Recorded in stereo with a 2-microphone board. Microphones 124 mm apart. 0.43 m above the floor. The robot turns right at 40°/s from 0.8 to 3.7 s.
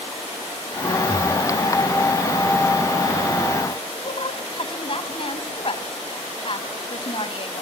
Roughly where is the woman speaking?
Left.